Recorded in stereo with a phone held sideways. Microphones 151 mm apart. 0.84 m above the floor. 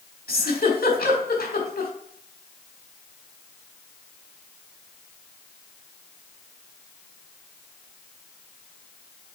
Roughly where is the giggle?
Left.